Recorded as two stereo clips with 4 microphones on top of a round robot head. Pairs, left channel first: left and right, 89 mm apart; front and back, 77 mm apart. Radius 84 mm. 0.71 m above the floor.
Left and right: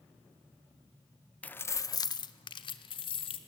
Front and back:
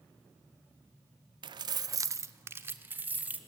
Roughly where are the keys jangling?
Behind.